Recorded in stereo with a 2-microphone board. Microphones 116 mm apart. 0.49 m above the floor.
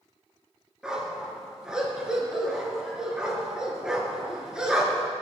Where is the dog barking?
5° right (ahead or behind), 3.5 m.